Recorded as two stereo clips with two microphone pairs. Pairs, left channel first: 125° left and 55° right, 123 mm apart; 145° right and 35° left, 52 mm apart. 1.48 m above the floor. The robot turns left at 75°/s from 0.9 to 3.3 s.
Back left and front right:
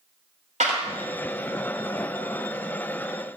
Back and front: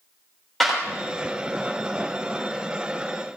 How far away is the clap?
About 3.5 m.